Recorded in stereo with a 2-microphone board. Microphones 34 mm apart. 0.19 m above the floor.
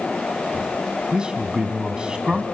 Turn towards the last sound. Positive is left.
turn(degrees=-25)  # may be behind; listen again after turning